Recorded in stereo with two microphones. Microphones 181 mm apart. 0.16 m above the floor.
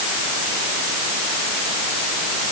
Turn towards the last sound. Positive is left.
No sound to turn to.